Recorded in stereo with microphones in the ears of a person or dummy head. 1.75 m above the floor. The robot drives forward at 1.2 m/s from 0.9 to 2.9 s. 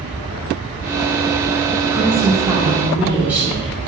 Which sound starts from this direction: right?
A woman speaking, at 1.9 s.